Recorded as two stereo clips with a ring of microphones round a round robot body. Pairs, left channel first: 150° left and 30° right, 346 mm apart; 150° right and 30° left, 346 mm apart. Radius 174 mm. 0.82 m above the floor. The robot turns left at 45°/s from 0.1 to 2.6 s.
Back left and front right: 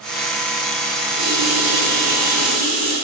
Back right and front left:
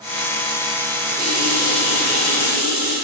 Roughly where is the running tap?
Ahead right.